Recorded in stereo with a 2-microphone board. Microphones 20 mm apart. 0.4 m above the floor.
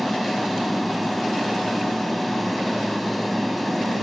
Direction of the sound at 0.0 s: 5° left (ahead or behind).